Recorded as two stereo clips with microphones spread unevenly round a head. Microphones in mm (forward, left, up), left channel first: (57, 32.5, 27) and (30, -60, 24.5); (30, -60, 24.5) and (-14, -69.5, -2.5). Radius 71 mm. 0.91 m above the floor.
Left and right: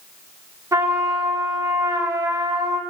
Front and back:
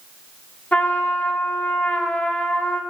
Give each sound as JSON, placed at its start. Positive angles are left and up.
{"t": 0.7, "sound": "a trumpet", "azimuth_deg": -50, "distance_m": 2.5}